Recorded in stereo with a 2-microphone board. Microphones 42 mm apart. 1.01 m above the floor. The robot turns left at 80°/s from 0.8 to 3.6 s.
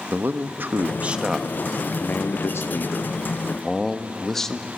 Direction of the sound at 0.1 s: 130° right.